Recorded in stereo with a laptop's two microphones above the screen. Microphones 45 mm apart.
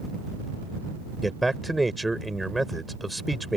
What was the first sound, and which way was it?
A man speaking, 5° left (ahead or behind).